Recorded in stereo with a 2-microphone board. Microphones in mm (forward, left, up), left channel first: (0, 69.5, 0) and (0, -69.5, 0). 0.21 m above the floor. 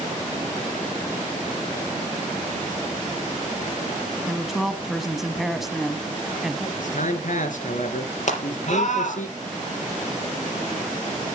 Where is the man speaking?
65° left (ahead or behind), 2.5 m.